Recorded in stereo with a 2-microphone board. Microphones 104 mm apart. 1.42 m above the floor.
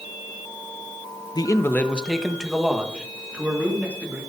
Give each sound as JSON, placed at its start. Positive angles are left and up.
{"t": 1.4, "sound": "a man speaking", "side_deg": 45, "distance_m": 0.7}